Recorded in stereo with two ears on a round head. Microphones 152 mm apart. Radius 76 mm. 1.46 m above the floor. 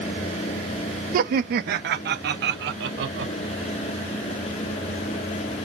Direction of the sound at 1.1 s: 55° right (ahead or behind).